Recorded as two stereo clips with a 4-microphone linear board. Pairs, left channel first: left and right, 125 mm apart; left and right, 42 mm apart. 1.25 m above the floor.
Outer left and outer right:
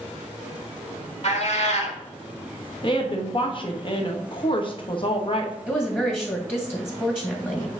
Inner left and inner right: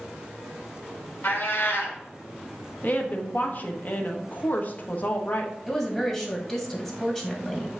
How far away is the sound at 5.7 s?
About 1.6 m.